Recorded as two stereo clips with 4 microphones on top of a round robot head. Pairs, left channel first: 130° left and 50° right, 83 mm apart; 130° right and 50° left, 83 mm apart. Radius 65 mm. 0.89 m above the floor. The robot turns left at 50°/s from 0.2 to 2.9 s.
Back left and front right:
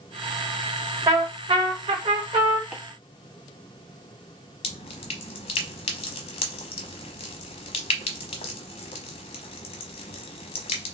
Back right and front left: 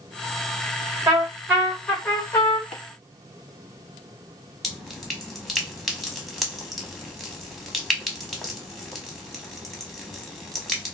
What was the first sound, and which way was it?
A trumpet, 5° right.